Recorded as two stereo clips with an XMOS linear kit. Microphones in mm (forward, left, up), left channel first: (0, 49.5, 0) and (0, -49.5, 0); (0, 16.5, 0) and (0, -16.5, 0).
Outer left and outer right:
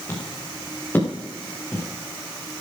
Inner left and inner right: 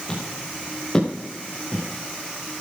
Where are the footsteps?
20° left (ahead or behind), 5.5 m.